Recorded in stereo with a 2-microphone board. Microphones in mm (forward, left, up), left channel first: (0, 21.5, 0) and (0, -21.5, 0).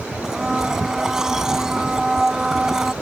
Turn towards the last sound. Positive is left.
turn(degrees=-15)  # may be behind; listen again after turning